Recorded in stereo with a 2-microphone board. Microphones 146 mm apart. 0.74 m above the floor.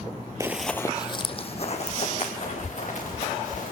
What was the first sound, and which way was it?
Running footsteps, 20° right (ahead or behind).